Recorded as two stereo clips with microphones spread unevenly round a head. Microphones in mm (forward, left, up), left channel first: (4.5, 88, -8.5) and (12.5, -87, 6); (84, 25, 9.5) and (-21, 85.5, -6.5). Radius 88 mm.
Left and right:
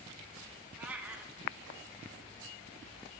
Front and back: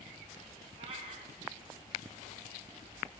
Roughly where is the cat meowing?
Behind.